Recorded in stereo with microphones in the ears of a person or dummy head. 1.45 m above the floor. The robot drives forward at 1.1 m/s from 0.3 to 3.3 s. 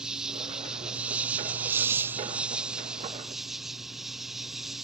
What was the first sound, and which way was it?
An insect, 5° right (ahead or behind).